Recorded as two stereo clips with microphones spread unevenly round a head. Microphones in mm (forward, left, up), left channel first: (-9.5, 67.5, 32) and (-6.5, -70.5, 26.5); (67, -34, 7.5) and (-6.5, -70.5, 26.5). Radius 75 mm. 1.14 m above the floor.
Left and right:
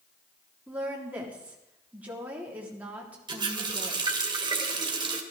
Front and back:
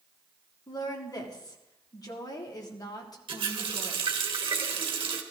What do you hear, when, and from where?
0.7 s a woman speaking: 10° right, 3 m
3.3 s a running tap: 145° right, 2 m